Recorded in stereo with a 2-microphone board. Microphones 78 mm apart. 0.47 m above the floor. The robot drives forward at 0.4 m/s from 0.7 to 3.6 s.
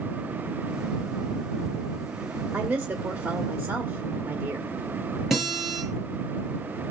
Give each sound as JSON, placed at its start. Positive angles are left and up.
{"t": 2.5, "sound": "a woman speaking", "side_deg": -20, "distance_m": 1.7}
{"t": 5.3, "sound": "a guitar", "side_deg": 0, "distance_m": 6.5}